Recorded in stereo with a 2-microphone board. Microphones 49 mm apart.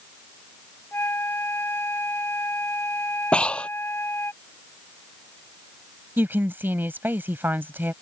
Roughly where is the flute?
Left.